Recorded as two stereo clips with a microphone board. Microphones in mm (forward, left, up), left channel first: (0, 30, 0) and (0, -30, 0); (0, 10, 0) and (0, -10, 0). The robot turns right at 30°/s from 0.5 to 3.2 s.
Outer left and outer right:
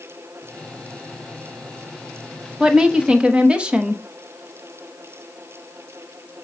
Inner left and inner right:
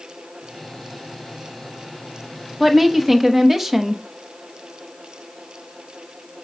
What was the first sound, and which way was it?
A woman speaking, 15° right (ahead or behind).